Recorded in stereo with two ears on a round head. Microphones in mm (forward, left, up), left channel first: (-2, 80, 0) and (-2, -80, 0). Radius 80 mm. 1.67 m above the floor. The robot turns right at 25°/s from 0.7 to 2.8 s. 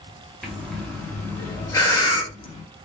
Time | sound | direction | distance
0.4 | breathing | centre (ahead or behind) | 0.6 m